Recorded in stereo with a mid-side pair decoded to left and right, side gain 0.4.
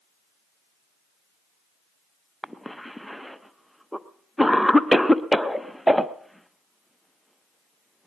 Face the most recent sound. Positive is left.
turn(degrees=-5)